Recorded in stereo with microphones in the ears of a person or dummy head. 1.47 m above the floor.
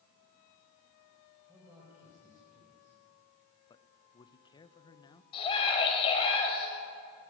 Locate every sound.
1.5 s a man speaking: 15° right (ahead or behind), 5.5 m
3.7 s a man speaking: 25° left (ahead or behind), 1.1 m
5.3 s a scream: 30° left (ahead or behind), 6 m